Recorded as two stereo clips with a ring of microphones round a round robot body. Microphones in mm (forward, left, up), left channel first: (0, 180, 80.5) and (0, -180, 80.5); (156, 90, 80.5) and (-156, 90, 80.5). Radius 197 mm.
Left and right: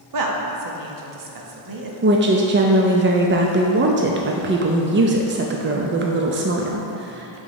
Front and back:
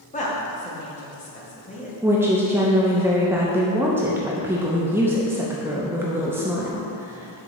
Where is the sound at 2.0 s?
105° right, 0.6 m.